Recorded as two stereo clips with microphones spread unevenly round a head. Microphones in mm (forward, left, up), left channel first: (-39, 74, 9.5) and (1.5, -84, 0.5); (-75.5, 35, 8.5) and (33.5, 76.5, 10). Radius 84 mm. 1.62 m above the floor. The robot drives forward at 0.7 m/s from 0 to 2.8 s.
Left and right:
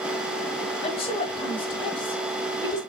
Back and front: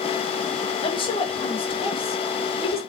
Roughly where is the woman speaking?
Behind.